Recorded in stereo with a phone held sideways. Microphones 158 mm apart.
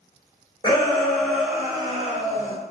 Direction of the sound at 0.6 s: 25° left (ahead or behind).